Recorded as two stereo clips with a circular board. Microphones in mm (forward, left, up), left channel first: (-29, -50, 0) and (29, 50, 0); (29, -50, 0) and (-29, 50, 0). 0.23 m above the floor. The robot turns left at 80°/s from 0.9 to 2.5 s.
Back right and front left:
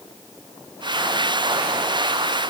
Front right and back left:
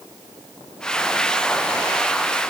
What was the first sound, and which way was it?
Only background noise.